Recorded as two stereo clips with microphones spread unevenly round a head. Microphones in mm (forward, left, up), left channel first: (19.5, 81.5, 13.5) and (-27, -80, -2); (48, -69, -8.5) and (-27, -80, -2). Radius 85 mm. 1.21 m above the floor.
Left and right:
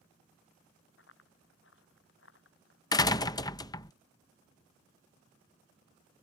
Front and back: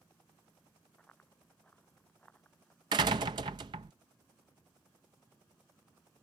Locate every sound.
1.0 s running footsteps: 95° left
2.9 s a door slam: 140° left